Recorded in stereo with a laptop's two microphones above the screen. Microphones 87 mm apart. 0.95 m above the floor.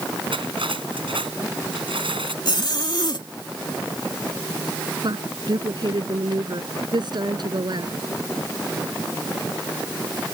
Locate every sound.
0.3 s cutlery clinking: 85° right
2.5 s a zipper: 60° left (ahead or behind)
5.0 s a woman speaking: 60° right (ahead or behind)